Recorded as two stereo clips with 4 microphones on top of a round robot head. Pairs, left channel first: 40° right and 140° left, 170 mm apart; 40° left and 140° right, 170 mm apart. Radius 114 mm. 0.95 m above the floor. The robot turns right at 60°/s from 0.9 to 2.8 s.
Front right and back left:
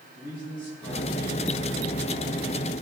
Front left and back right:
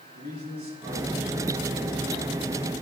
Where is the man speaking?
80° right, 6.5 m; by 2.3 s 5° left, 6.5 m.